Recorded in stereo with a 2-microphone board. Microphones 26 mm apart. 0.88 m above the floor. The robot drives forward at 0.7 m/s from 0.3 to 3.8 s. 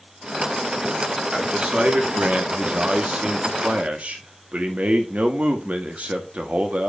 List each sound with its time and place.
1.3 s a man speaking: 40° right (ahead or behind), 2 m; by 6.9 s 70° right (ahead or behind), 1.4 m